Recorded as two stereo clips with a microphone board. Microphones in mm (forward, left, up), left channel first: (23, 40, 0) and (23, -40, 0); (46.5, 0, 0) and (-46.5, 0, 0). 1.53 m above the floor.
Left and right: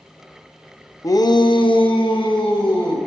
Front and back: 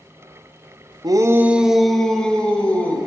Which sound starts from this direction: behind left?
A shout, at 1.0 s.